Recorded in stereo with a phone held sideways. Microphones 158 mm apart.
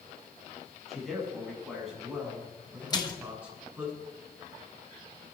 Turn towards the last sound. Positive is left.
turn(degrees=25)  # may be behind; listen again after turning